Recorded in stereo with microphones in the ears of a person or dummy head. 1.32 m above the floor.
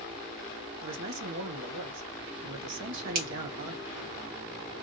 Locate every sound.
0.8 s a man speaking: 70° right (ahead or behind), 1.1 m
3.1 s a finger snap: 45° right (ahead or behind), 1.1 m